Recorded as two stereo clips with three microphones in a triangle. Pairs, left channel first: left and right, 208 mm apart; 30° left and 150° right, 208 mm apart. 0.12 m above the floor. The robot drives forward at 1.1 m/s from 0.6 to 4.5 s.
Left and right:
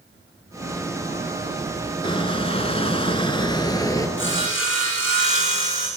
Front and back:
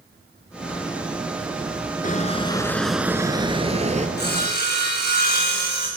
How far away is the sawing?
About 6.5 m.